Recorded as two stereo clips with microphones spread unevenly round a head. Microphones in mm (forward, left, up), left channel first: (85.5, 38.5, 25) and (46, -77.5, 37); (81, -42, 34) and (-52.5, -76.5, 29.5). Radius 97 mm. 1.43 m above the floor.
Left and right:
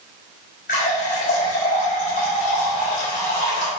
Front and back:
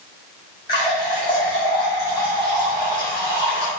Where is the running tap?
85° left, 4 m.